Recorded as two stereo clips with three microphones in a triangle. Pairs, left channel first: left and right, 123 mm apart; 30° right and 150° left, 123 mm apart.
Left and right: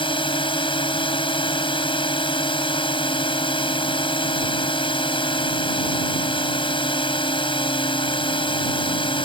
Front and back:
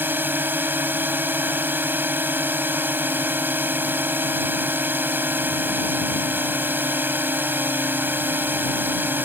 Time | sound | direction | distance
0.0 | a drone | 85° left | ?